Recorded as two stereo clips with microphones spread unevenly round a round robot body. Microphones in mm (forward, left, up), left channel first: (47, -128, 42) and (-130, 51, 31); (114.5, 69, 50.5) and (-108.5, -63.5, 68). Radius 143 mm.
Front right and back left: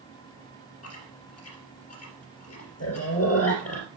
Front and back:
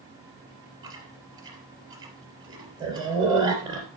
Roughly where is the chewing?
Right.